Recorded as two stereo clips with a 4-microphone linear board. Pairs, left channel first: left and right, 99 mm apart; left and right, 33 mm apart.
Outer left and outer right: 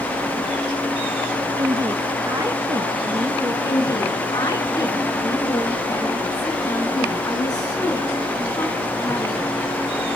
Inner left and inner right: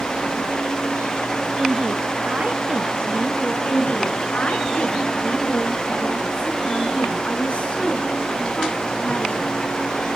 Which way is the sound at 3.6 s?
40° left (ahead or behind).